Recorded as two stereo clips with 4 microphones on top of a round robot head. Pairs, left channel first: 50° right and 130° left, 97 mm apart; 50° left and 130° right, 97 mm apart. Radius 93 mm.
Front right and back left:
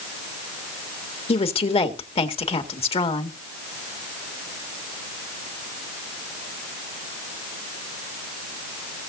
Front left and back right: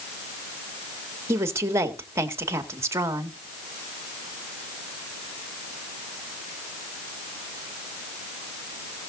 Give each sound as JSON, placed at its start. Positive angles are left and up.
{"t": 1.3, "sound": "a woman speaking", "azimuth_deg": -70, "distance_m": 1.9}